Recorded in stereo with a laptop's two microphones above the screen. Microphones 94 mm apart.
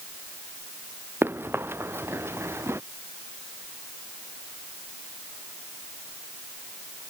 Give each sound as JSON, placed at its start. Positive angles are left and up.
{"t": 1.2, "sound": "running footsteps", "side_deg": -25}